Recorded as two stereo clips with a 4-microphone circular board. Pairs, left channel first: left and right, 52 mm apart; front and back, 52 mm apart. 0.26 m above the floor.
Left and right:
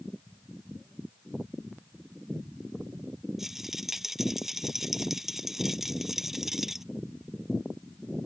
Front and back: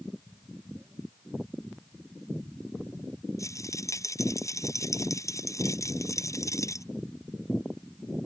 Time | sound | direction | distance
3.4 | a rattle | 5° right | ?